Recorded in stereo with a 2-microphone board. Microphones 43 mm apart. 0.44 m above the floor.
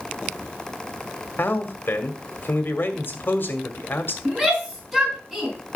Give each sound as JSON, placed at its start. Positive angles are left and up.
{"t": 1.4, "sound": "a man speaking", "side_deg": 50, "distance_m": 1.9}
{"t": 4.2, "sound": "a shout", "side_deg": 5, "distance_m": 4.5}